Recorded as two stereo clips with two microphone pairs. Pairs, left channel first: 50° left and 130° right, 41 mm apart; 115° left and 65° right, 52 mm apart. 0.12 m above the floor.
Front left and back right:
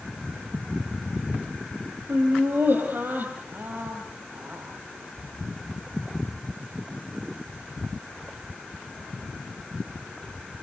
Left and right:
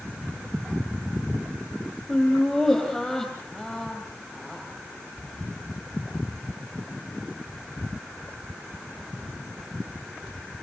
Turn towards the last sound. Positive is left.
turn(degrees=-160)